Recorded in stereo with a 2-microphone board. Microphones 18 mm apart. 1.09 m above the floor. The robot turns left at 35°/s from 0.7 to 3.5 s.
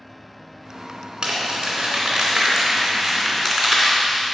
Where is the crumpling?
65° right (ahead or behind), 2.5 m; by 4.3 s 5° left (ahead or behind), 2.5 m.